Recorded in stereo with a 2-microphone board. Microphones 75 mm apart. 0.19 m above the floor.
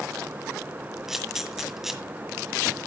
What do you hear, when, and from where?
1.1 s a camera shutter: 5° right (ahead or behind), 1.7 m